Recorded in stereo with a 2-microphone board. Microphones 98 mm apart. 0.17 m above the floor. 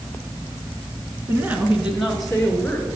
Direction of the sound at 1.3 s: 25° right (ahead or behind).